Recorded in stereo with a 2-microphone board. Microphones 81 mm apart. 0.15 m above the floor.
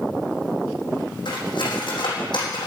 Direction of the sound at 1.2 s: 70° left (ahead or behind).